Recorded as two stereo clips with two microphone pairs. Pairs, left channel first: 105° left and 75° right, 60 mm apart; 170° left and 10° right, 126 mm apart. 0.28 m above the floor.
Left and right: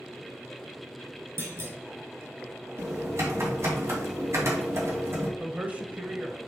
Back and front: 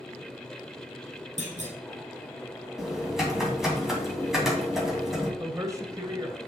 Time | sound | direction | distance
1.4 | a clunk | 40° right | 2.5 m
2.8 | typing on a keyboard | 95° right | 2.5 m
5.4 | a man speaking | 40° right | 1.1 m